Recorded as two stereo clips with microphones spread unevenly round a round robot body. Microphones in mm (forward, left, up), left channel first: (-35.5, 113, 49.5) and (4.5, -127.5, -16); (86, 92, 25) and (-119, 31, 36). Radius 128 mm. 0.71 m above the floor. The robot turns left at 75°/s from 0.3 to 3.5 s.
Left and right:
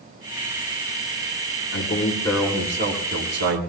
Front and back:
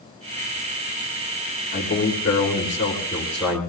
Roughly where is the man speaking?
Ahead left.